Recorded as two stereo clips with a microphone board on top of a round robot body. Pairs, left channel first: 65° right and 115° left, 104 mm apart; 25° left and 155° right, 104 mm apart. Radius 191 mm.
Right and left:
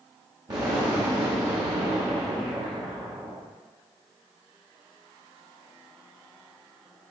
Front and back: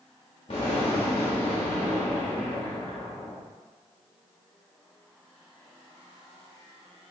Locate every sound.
0.5 s an explosion: 60° left, 0.9 m